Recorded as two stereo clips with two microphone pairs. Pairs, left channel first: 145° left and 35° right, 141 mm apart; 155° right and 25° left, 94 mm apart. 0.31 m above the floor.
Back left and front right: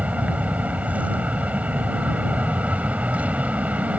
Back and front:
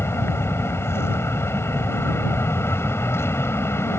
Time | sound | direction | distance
0.0 | an aircraft | 110° right | ?